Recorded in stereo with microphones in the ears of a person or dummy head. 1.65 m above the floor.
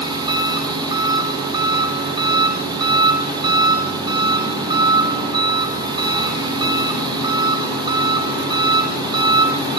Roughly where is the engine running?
Right.